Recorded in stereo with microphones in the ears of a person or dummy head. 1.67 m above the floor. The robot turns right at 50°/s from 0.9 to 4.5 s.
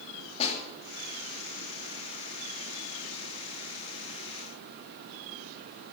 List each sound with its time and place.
0.4 s a snare drum: 35° left (ahead or behind), 3.5 m